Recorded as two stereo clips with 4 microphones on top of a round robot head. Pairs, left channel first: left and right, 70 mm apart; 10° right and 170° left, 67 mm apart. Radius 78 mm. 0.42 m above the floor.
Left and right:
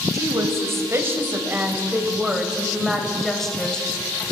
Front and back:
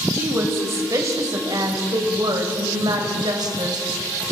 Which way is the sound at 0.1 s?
130° right.